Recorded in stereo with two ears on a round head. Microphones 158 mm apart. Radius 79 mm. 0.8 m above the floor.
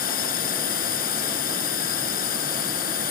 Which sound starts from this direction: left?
A drone, at 0.0 s.